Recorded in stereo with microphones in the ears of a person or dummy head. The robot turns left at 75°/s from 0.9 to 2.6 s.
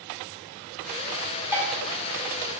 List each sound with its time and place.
1.5 s dishes clattering: 15° right (ahead or behind), 1.2 m; by 1.7 s 5° right (ahead or behind), 1.2 m